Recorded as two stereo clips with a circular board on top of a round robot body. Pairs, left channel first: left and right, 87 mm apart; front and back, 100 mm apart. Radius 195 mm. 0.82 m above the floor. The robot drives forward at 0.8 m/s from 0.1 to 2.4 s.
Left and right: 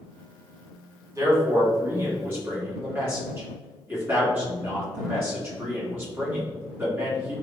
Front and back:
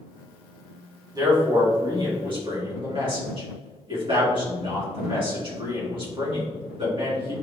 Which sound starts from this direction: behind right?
A man speaking, at 1.1 s.